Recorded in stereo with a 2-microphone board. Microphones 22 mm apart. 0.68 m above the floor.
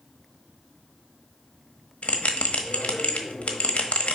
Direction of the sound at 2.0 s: 70° left (ahead or behind).